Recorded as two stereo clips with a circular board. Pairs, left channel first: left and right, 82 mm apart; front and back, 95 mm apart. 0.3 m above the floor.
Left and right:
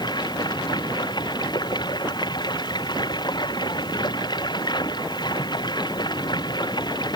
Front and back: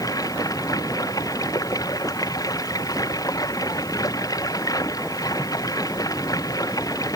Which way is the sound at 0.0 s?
55° left.